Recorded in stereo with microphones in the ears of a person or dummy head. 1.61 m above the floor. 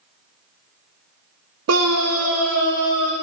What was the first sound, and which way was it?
A scream, 75° right (ahead or behind).